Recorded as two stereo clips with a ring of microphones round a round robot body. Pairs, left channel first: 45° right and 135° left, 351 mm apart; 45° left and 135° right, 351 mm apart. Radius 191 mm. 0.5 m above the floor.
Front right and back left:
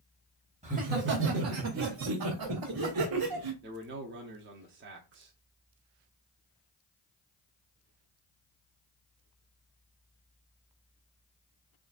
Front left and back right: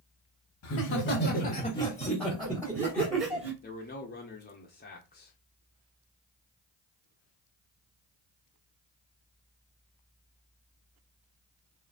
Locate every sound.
0.6 s laughter: 70° left, 1.1 m; by 3.5 s 155° left, 2.0 m
3.6 s a man speaking: 95° left, 0.9 m